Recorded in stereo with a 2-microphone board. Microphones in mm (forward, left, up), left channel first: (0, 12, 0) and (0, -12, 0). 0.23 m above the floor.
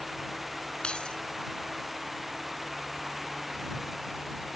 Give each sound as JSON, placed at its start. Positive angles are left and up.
{"t": 0.8, "sound": "keys jangling", "side_deg": 45}